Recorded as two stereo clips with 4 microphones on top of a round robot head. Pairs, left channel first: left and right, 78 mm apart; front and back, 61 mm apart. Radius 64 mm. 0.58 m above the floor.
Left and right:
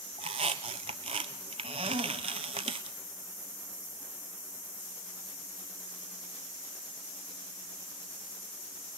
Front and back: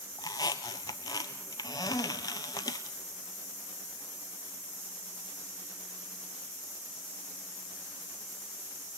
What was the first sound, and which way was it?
A squeak, 55° right.